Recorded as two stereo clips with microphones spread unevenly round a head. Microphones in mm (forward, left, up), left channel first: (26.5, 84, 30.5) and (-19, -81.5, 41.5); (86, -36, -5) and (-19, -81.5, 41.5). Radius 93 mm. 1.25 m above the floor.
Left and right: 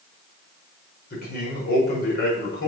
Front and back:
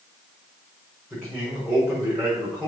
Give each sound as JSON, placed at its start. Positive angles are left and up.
{"t": 1.1, "sound": "a man speaking", "azimuth_deg": 110, "distance_m": 4.5}